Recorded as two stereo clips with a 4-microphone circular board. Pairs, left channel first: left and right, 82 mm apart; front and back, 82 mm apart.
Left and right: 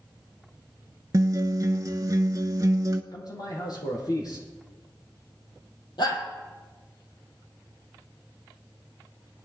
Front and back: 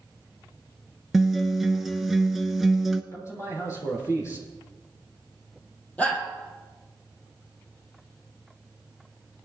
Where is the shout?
70° left, 3.5 m.